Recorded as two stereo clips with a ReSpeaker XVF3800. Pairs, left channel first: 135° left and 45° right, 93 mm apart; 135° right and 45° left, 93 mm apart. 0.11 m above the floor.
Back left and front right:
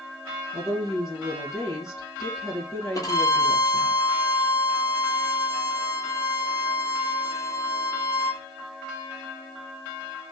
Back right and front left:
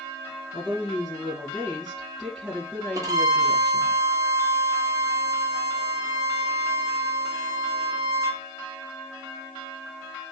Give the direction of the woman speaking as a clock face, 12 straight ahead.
8 o'clock.